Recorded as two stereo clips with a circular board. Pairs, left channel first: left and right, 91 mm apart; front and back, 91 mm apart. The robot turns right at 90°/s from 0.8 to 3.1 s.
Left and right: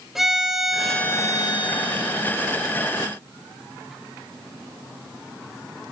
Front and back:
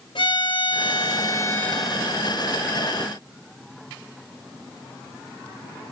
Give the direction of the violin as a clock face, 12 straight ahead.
12 o'clock.